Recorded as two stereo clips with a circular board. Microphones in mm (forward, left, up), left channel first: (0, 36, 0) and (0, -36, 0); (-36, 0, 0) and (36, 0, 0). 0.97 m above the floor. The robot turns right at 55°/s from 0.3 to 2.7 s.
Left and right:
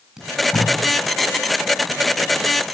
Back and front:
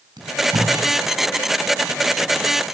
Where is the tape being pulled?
5° right, 6.5 m; by 0.7 s 20° left, 6.5 m.